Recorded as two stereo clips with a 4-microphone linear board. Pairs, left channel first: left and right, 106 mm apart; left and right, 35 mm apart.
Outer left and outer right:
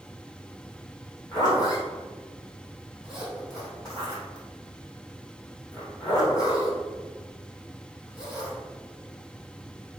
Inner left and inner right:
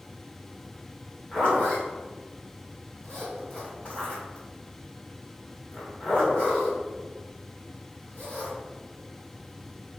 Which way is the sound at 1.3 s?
35° left (ahead or behind).